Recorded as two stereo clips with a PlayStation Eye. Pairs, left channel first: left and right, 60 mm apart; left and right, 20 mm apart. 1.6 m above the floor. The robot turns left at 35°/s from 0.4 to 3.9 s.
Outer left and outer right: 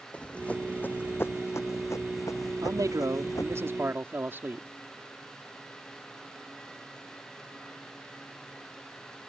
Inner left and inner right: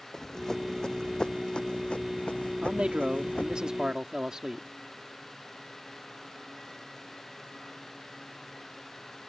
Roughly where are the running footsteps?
Left.